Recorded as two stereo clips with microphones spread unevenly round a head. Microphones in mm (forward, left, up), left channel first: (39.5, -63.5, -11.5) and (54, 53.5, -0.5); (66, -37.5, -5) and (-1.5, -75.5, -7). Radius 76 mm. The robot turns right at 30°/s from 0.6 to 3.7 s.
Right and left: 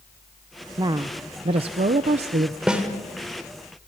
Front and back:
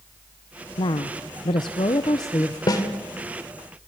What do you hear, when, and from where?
0.8 s a woman speaking: 30° left, 0.7 m; by 2.6 s 85° left, 0.7 m
2.7 s a snare drum: 5° left, 2.5 m; by 2.8 s 10° left, 2.5 m